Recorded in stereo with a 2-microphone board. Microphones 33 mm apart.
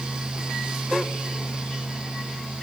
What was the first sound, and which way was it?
Only background noise.